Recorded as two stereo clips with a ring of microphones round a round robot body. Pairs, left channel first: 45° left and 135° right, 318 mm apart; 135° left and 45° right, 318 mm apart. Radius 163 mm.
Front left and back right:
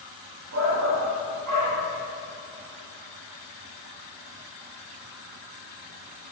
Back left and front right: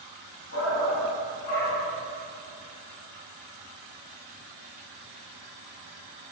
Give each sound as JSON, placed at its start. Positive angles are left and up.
{"t": 0.5, "sound": "a shout", "azimuth_deg": 180, "distance_m": 1.5}